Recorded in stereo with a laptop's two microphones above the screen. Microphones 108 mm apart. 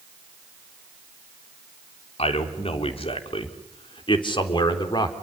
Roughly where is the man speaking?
Left.